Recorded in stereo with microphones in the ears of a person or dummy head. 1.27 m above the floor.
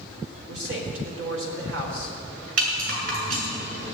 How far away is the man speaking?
About 4.5 m.